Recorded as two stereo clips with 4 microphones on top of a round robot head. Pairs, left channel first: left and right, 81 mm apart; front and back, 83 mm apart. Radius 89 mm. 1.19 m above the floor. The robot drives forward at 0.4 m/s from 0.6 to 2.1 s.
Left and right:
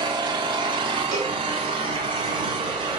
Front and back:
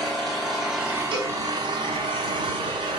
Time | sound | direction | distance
0.0 | an engine running | 90° right | 0.9 m
1.1 | a cowbell | 140° right | 3.5 m